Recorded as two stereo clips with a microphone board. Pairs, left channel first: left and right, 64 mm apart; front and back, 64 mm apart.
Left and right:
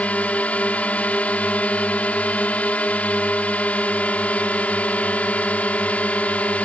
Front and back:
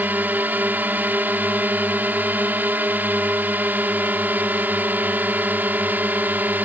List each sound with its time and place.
0.0 s a drone: 140° left